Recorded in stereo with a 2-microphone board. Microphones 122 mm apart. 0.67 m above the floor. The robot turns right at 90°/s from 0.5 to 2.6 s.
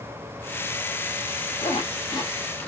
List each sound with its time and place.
1.6 s a zipper: 35° left (ahead or behind), 1.1 m; by 2.7 s 15° left (ahead or behind), 1.1 m